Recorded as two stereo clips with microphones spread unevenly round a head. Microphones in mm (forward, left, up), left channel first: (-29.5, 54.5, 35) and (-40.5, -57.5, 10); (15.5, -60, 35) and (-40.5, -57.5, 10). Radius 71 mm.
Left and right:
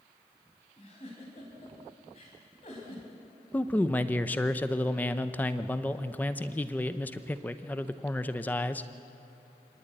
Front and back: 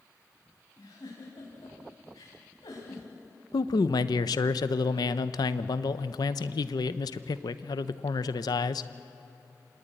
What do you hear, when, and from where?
0.8 s a giggle: 35° left, 4.5 m
3.5 s a man speaking: straight ahead, 0.8 m